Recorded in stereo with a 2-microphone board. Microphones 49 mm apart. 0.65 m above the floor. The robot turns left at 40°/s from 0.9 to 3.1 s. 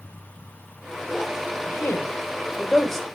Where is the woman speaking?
60° left (ahead or behind), 2 m; by 3.0 s 5° left (ahead or behind), 2 m.